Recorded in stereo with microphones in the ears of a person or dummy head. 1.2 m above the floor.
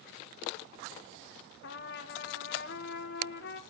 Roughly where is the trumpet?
Left.